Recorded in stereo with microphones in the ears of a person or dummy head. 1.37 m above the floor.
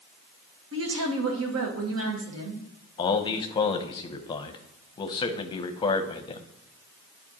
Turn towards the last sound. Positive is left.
turn(degrees=25)  # may be behind; listen again after turning